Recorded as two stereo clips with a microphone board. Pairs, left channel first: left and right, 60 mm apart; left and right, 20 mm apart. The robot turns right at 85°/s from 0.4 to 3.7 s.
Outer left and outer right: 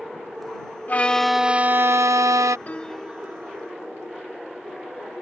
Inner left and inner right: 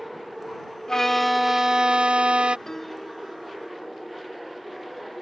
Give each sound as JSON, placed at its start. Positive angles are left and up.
{"t": 0.9, "sound": "a violin", "azimuth_deg": 145}
{"t": 2.7, "sound": "a piano", "azimuth_deg": 150}